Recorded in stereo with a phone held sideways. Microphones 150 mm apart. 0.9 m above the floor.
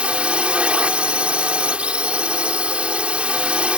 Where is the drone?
5° right (ahead or behind).